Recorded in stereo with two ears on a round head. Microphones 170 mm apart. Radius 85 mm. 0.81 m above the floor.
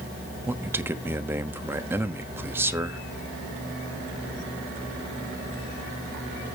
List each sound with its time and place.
0.5 s a man speaking: 10° right (ahead or behind), 1.0 m